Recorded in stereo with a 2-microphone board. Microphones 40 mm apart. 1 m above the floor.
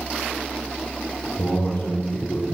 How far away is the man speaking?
About 3.5 m.